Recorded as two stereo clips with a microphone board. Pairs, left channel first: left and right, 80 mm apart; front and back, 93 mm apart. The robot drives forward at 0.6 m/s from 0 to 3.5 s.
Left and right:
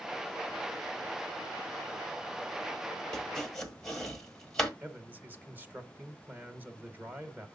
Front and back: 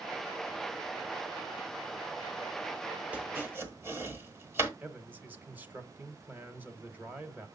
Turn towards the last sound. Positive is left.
turn(degrees=-130)